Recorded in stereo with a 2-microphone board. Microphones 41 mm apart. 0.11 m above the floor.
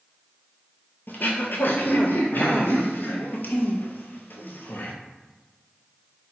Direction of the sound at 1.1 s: 60° left (ahead or behind).